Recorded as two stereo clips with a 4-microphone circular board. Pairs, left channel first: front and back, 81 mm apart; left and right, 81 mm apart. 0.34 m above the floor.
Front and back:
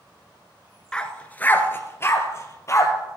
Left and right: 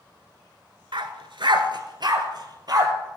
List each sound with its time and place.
0.9 s a dog barking: 80° right, 1.0 m; by 2.9 s 50° right, 2 m